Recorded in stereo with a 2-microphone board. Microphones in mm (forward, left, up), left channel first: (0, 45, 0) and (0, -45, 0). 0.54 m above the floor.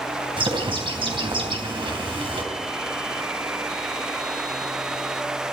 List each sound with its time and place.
0.4 s a bird: 70° right (ahead or behind), 3.5 m